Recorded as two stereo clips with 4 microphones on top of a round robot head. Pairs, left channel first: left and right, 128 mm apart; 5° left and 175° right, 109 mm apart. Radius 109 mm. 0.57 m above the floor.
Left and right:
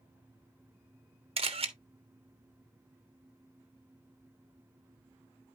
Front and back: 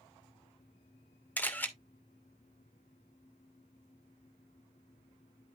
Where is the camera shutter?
65° right, 1.9 m.